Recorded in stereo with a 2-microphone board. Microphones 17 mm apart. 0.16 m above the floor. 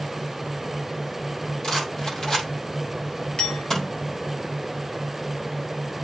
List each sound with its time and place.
1.6 s a rattle: 50° left (ahead or behind), 3.5 m
3.4 s a clink: 65° left (ahead or behind), 2.5 m